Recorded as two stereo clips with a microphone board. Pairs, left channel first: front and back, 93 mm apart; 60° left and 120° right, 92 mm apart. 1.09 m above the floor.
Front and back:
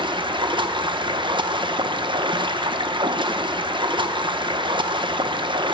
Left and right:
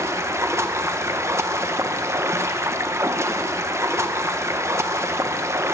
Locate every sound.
0.0 s running water: 175° right, 0.7 m